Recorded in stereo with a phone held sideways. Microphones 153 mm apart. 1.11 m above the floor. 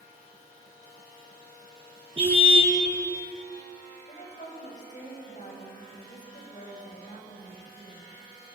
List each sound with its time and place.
2.2 s a car horn: 35° right (ahead or behind), 6.5 m
4.1 s a woman speaking: 50° left (ahead or behind), 5.5 m